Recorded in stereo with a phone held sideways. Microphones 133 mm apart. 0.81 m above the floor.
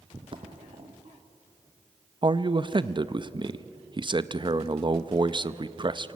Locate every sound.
0.1 s footsteps: 40° right (ahead or behind), 1.8 m; by 2.9 s 55° right (ahead or behind), 3.5 m
2.2 s a man speaking: 35° right (ahead or behind), 0.6 m